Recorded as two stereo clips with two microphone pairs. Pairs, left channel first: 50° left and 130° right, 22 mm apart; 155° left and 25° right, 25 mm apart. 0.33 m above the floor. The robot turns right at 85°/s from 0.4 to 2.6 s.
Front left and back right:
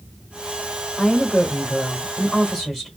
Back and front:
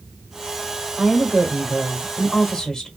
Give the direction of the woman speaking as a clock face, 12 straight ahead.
1 o'clock.